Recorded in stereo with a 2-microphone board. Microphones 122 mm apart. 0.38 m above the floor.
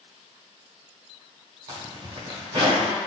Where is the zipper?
40° right (ahead or behind), 0.8 m.